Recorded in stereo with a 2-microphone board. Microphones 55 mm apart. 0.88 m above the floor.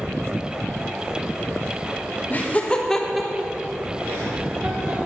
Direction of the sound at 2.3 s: 35° left (ahead or behind).